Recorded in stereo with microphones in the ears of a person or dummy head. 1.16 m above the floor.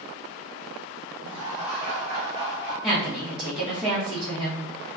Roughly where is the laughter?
Right.